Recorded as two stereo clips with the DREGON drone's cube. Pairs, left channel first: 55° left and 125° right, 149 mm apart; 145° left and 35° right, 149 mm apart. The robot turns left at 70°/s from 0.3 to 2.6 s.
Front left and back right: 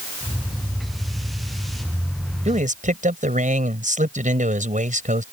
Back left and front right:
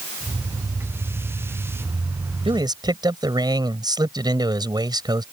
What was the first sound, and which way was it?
A man speaking, 85° right.